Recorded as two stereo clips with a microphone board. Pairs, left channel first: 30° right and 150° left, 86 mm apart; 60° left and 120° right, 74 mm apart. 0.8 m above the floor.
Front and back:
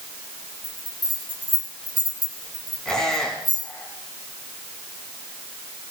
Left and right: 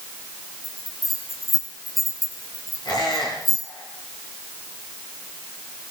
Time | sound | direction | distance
0.6 | a bell | 150° left | 3 m
2.9 | a squeak | 55° left | 4.5 m